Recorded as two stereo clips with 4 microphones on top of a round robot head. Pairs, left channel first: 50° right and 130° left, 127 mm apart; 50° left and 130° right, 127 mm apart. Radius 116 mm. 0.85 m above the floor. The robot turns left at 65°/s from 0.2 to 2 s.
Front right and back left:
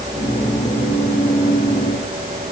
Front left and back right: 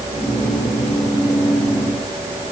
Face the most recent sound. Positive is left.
No sound to turn to.